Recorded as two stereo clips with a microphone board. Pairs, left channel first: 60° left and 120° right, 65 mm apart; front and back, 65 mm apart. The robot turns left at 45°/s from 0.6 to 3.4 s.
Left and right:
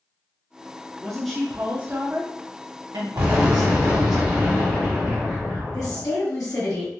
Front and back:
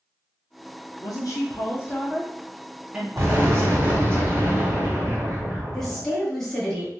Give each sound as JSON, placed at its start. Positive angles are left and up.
{"t": 1.0, "sound": "a woman speaking", "azimuth_deg": -20, "distance_m": 0.6}
{"t": 3.2, "sound": "an explosion", "azimuth_deg": -175, "distance_m": 1.8}
{"t": 5.7, "sound": "a woman speaking", "azimuth_deg": 85, "distance_m": 1.4}